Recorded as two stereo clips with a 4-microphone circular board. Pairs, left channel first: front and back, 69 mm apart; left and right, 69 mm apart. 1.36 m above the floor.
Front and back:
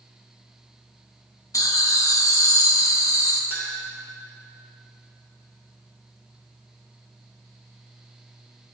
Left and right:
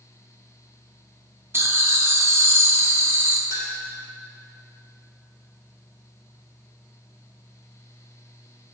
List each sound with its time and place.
1.5 s laughter: 35° right, 0.9 m
3.5 s a clink: 125° left, 2.5 m